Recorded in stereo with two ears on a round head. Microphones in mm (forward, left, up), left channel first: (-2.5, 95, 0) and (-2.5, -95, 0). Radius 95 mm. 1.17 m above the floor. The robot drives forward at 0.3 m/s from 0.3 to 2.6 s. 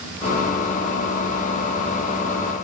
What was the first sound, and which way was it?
Only background noise.